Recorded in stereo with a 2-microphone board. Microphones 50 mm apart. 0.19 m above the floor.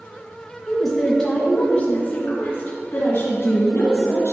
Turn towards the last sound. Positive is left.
turn(degrees=55)  # may be behind; listen again after turning